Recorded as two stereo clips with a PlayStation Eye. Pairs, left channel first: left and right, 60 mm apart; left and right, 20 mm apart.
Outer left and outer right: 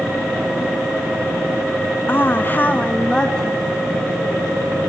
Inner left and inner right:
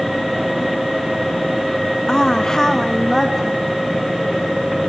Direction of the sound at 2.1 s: 35° left (ahead or behind).